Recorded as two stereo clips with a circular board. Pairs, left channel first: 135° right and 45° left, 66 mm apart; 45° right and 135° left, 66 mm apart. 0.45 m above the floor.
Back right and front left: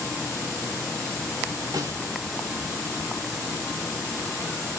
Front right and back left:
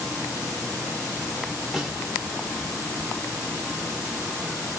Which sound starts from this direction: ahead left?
A snare drum, at 1.7 s.